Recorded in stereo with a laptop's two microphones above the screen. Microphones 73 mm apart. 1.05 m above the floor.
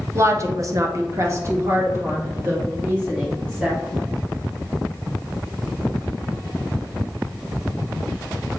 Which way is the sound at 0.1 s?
35° right (ahead or behind).